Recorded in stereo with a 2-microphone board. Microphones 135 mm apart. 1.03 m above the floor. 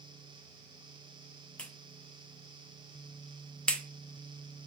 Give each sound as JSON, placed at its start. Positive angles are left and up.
{"t": 1.6, "sound": "a clap", "side_deg": 5, "distance_m": 0.5}